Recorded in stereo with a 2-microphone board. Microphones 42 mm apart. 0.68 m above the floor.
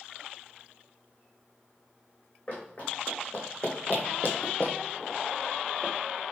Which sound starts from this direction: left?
Running footsteps, at 2.5 s.